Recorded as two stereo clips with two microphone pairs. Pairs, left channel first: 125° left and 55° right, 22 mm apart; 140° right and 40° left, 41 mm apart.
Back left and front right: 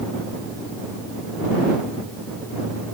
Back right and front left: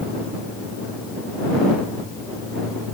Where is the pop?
I don't hear a pop.